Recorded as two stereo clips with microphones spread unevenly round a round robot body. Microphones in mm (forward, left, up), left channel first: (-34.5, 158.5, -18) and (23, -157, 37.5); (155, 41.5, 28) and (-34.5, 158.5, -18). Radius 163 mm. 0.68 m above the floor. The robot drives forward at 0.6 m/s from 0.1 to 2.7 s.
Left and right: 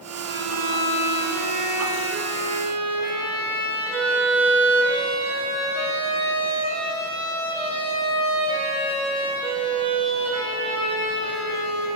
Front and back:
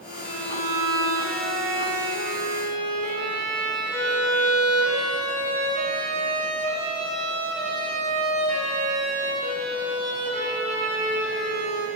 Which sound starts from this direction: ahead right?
A violin, at 0.2 s.